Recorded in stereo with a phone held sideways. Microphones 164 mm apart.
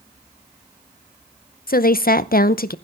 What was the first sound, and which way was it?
A woman speaking, 65° left (ahead or behind).